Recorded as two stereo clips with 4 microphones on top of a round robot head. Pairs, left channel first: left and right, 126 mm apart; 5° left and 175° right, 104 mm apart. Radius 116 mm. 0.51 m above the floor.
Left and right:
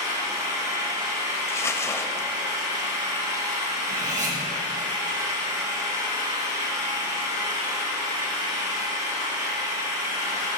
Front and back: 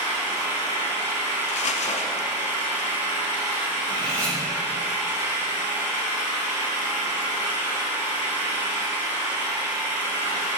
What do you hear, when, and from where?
0.0 s an engine running: 30° right, 3.5 m
1.5 s crumpling: 20° left, 0.8 m
3.9 s cutlery clinking: 70° right, 3 m